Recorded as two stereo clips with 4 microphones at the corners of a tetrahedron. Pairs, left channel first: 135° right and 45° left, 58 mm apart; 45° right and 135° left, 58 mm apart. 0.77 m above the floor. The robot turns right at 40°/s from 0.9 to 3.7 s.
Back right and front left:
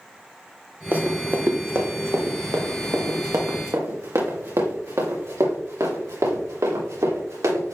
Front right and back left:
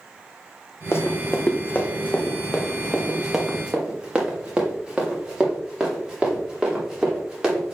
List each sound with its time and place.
0.9 s running footsteps: 10° right, 1.5 m; by 7.8 s 55° left, 5.5 m